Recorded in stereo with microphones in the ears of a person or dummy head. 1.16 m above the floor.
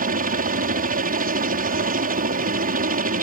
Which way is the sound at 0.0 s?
45° right (ahead or behind).